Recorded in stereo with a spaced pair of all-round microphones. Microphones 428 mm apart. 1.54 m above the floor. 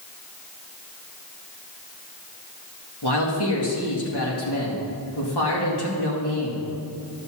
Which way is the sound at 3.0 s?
65° left (ahead or behind).